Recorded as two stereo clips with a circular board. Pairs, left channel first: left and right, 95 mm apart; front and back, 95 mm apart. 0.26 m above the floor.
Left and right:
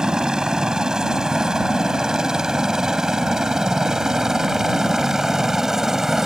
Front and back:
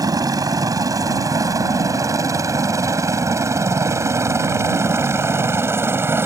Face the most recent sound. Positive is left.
turn(degrees=-170)